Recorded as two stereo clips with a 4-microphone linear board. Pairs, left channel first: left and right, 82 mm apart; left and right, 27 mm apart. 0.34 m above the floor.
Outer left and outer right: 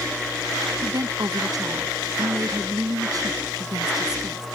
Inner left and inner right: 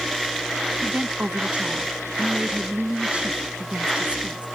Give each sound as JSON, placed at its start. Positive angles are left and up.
{"t": 0.8, "sound": "a woman speaking", "side_deg": -55}